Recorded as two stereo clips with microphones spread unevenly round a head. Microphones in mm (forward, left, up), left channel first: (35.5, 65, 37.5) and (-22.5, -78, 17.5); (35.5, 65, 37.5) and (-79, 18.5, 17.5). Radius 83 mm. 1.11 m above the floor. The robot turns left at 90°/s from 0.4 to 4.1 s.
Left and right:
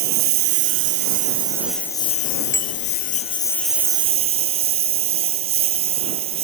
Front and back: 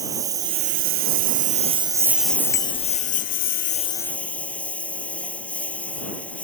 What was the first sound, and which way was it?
A lawn mower, 85° right.